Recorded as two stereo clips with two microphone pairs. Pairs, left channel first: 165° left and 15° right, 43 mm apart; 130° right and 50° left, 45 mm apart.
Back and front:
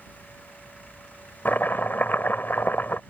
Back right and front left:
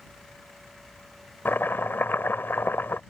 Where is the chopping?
160° right.